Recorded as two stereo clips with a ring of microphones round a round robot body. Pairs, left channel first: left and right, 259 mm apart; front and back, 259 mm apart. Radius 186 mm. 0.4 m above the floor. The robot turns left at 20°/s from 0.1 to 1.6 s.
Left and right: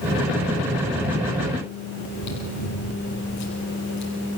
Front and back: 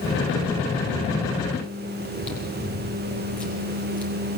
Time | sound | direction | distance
2.0 | chewing | 85° left | 7.5 m